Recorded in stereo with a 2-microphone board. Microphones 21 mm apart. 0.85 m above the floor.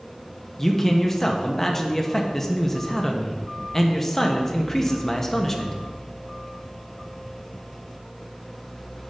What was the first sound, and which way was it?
A man speaking, 15° left (ahead or behind).